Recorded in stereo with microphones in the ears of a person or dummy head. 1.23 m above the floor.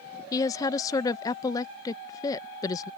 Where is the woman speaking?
20° left (ahead or behind).